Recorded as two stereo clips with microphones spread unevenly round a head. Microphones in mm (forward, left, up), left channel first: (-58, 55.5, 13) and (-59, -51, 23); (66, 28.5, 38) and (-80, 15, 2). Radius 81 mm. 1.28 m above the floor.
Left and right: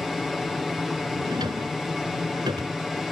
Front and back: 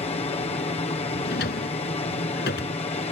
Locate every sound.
0.0 s an aircraft: 5° left
1.2 s a drawer: 25° right